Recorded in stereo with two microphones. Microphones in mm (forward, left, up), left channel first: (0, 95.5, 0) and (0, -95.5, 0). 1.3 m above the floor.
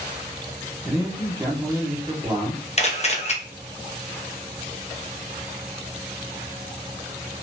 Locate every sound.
0.8 s a man speaking: 20° right (ahead or behind), 1.3 m
2.8 s a camera shutter: 35° left (ahead or behind), 0.6 m